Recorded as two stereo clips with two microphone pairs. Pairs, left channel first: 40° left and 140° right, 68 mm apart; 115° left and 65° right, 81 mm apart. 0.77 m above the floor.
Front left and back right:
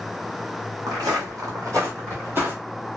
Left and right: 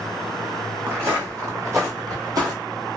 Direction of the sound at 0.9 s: 125° right.